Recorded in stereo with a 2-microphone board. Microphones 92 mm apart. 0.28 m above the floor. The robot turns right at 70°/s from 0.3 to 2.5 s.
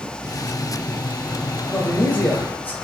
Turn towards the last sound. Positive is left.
turn(degrees=20)  # may be behind; listen again after turning